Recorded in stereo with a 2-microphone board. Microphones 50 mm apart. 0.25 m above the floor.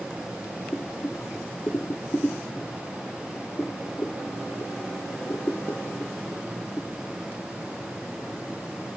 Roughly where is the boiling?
Left.